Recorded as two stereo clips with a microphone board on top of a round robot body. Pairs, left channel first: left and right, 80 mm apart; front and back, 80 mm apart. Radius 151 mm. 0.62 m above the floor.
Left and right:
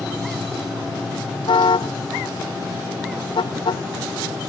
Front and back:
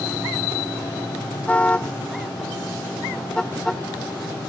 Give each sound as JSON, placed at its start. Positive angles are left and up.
{"t": 1.5, "sound": "a car horn", "azimuth_deg": 75}